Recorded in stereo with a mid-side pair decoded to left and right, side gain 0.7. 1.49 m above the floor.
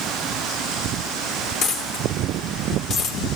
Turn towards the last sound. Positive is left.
turn(degrees=55)